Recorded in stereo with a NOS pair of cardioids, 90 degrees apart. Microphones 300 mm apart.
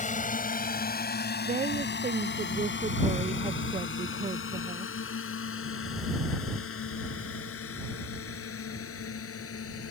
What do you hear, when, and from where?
0.0 s a drone: 25° left; by 9.9 s 50° left
1.4 s a woman speaking: 25° right